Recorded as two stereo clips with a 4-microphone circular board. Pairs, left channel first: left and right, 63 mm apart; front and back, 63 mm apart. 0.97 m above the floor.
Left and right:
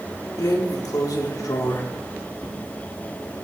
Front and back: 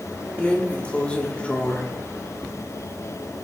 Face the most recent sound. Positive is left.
turn(degrees=75)